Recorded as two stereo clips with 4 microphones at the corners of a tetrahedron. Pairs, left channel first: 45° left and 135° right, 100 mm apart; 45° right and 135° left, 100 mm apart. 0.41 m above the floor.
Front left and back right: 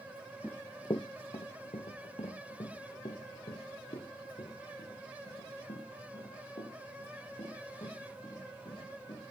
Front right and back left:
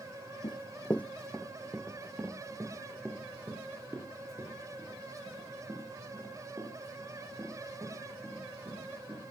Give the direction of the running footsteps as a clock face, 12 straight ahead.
1 o'clock.